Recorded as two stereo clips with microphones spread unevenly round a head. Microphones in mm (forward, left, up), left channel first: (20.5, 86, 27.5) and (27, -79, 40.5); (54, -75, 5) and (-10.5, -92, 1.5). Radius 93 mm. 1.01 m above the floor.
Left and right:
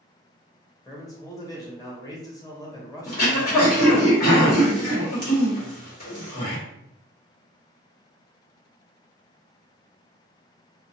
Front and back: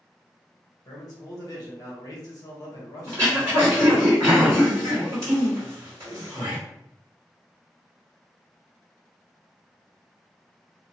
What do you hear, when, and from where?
0.8 s a man speaking: 30° left, 1.1 m
3.1 s throat clearing: 130° left, 1.3 m